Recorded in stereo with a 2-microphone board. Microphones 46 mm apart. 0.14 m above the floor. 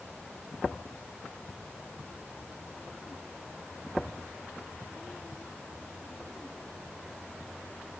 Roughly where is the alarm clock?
I don't hear an alarm clock.